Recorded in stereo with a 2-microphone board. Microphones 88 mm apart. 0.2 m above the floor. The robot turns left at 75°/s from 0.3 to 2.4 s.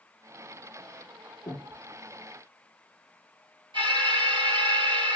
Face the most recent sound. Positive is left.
turn(degrees=-70)  # may be behind; listen again after turning